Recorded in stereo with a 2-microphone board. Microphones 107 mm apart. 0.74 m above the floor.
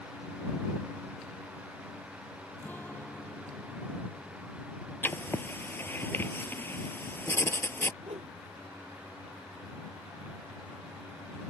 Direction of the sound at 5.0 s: 20° left (ahead or behind).